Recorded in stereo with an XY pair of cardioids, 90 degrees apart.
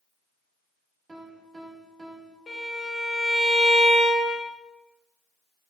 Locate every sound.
1.1 s a piano: 30° right, 0.8 m
2.5 s a violin: 50° left, 1.5 m